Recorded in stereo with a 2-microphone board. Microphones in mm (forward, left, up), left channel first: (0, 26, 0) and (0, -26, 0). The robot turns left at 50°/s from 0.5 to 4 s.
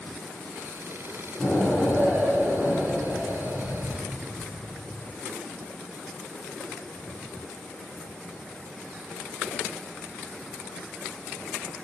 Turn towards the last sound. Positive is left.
turn(degrees=-105)